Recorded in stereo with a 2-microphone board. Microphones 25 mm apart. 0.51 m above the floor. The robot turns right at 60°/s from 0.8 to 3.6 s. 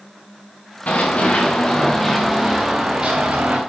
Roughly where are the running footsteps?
Left.